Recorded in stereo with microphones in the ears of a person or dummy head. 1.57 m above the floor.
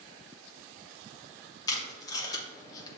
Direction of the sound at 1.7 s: 20° left (ahead or behind).